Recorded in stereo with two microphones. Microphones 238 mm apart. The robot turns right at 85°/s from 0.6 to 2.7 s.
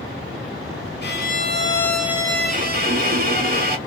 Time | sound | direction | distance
1.0 | a violin | 100° left | 0.6 m